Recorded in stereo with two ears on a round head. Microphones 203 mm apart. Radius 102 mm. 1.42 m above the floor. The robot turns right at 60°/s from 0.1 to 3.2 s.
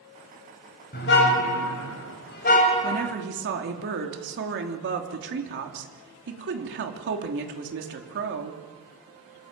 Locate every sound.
0.9 s a car horn: 45° left, 3 m; by 3.1 s straight behind, 3 m
2.8 s a woman speaking: 30° right (ahead or behind), 3 m; by 8.6 s 50° right (ahead or behind), 3 m